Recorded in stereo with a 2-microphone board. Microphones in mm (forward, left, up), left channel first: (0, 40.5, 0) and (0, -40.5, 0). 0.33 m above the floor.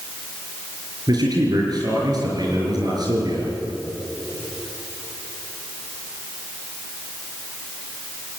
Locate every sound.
1.1 s a man speaking: 55° right (ahead or behind), 6 m